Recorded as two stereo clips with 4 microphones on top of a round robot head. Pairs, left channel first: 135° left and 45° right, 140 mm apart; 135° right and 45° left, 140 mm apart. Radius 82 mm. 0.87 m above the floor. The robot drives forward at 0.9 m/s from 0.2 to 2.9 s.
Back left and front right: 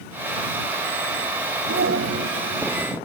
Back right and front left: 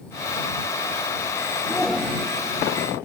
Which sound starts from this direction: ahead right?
A shout, at 1.7 s.